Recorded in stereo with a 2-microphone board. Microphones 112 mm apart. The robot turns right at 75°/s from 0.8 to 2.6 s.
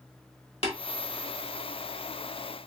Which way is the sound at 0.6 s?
65° left (ahead or behind).